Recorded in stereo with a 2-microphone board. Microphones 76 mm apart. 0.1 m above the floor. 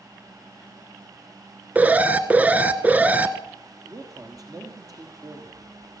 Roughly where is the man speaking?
Right.